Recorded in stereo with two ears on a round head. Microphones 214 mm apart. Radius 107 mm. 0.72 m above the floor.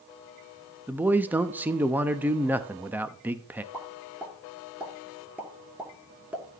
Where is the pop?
5° right (ahead or behind), 2 m.